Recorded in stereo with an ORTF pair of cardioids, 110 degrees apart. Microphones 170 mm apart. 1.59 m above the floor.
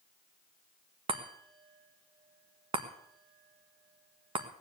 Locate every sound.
1.1 s a chime: 30° right, 1.6 m